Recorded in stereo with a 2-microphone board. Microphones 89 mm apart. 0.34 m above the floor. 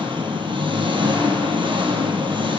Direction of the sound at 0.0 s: 70° right (ahead or behind).